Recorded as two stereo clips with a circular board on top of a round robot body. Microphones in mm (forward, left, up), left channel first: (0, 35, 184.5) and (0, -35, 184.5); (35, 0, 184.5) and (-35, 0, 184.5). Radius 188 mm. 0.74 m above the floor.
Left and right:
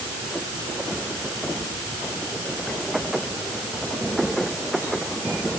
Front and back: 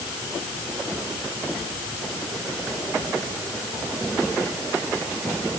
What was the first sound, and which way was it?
Only background noise.